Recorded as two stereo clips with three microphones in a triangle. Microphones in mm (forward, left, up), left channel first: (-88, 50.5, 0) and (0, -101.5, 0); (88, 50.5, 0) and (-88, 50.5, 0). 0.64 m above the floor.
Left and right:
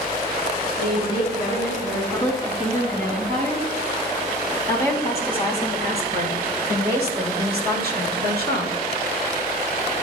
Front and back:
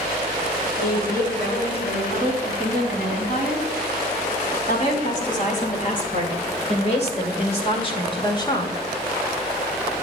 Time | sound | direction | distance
0.8 | a woman speaking | 30° right | 5 m